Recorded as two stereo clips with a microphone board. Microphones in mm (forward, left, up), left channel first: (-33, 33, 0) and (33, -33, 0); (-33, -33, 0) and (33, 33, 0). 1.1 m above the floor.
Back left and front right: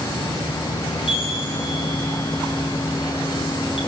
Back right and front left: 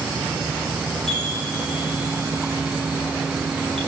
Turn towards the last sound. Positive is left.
turn(degrees=140)